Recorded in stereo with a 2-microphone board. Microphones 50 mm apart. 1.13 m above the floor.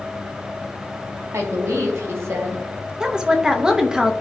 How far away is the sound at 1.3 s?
About 2 m.